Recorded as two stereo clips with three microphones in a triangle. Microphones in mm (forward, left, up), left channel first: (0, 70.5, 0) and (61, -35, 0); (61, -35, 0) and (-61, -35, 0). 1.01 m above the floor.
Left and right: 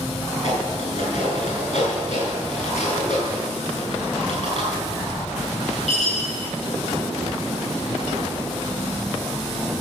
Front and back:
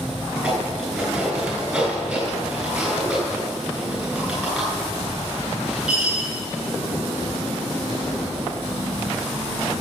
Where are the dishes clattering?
95° left, 7 m.